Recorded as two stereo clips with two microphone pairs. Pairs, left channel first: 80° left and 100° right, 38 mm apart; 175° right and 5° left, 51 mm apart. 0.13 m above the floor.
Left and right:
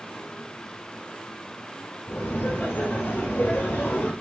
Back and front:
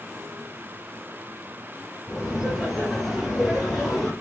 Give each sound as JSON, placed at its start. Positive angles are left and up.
{"t": 2.1, "sound": "laughter", "azimuth_deg": 75, "distance_m": 3.0}